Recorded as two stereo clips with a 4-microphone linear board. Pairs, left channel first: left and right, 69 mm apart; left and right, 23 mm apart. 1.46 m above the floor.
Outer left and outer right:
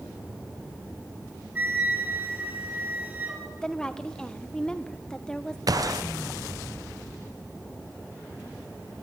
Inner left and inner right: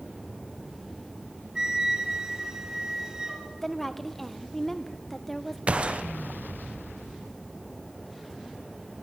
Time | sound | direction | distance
1.6 | a flute | 25° right (ahead or behind) | 5.5 m
3.6 | a woman speaking | 10° left (ahead or behind) | 1.2 m
5.7 | a gunshot | 60° right (ahead or behind) | 0.9 m